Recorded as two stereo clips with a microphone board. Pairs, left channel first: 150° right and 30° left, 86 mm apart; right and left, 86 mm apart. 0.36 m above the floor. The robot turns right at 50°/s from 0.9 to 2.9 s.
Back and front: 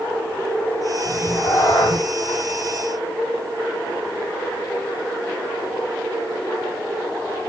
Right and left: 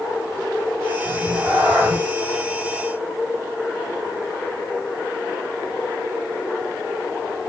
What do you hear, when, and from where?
1.1 s a cat meowing: 135° left, 5 m; by 2.0 s 175° right, 5 m